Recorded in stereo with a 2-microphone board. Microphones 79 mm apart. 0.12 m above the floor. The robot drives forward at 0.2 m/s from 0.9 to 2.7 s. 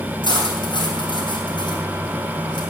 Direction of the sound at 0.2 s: 70° left (ahead or behind).